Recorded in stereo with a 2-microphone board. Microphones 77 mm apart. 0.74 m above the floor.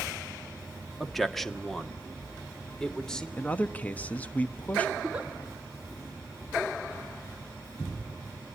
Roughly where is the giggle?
Centre.